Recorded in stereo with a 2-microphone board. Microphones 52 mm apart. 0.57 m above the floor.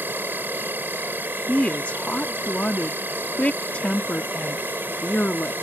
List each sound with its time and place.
0.0 s an insect: 45° right (ahead or behind)
1.5 s a woman speaking: 30° left (ahead or behind)